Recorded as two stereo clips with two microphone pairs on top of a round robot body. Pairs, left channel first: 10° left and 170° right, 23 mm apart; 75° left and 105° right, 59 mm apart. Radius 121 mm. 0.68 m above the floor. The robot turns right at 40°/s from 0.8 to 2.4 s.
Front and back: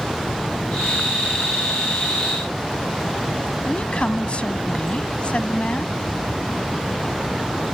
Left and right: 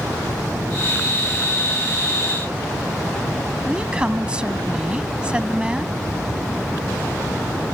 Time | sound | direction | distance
3.6 | a woman speaking | 30° right | ?